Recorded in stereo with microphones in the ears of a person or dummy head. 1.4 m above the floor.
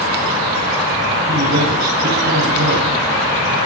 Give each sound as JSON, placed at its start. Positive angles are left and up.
{"t": 1.3, "sound": "a man speaking", "side_deg": -70, "distance_m": 7.5}